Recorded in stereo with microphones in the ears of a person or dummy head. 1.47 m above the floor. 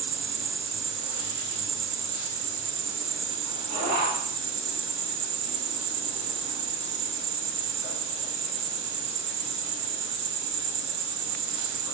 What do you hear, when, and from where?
0.0 s an insect: 55° right (ahead or behind), 3 m